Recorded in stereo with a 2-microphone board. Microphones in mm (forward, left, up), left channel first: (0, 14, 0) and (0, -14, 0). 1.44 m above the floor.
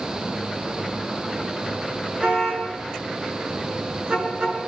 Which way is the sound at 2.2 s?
40° right (ahead or behind).